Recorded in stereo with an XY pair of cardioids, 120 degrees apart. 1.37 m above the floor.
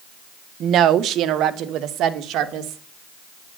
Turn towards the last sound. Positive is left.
turn(degrees=-70)